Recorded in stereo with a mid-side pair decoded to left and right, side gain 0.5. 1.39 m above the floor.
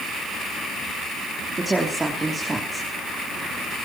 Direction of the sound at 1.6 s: 15° right.